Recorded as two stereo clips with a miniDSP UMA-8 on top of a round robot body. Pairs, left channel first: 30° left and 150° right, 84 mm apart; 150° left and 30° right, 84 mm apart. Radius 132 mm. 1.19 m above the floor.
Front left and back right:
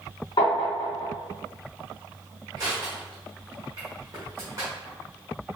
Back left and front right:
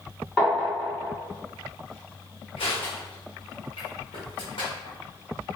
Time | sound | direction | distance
0.4 | tapping | 65° left | 1.4 m
2.6 | crushing | 155° left | 1.6 m